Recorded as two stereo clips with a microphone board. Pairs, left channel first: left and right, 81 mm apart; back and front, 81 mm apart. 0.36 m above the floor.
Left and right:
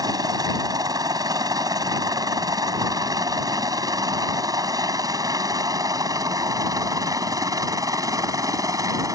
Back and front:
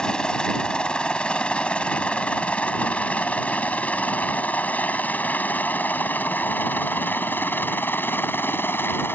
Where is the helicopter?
105° right; by 9.2 s 120° right.